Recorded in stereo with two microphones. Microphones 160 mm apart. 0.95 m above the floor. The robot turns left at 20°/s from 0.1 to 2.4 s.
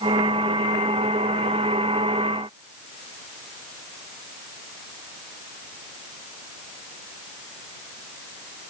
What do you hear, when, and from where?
Only background noise.